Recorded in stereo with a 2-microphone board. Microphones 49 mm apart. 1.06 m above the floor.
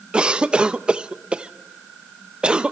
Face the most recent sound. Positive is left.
turn(degrees=-20)  # may be behind; listen again after turning